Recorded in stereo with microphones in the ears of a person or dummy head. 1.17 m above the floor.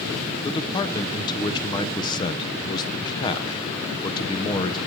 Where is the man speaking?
25° left (ahead or behind), 0.8 m.